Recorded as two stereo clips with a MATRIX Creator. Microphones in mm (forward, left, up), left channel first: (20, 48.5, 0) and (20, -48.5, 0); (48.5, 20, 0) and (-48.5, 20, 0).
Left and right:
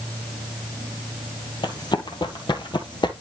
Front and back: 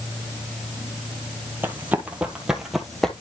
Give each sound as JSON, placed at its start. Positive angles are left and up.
{"t": 1.6, "sound": "running footsteps", "azimuth_deg": 115, "distance_m": 1.9}